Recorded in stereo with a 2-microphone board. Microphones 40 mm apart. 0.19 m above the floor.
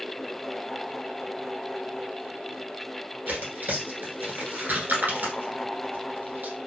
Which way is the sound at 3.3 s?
50° right (ahead or behind).